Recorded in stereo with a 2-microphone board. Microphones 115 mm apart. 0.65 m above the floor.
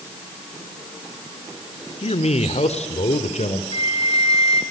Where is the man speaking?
60° left (ahead or behind), 2 m; by 3.6 s 70° left (ahead or behind), 3 m.